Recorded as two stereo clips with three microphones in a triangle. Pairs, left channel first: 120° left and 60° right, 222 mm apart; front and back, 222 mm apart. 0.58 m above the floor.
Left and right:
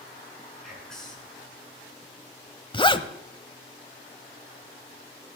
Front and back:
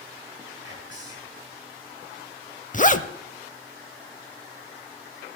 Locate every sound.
0.6 s whispering: 30° left, 6 m
2.7 s a zipper: 55° left, 0.7 m